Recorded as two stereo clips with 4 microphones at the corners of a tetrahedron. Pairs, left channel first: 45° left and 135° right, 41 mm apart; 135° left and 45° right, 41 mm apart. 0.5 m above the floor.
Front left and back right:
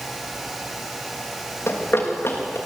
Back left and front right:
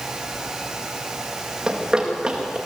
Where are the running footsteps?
20° left, 5.5 m.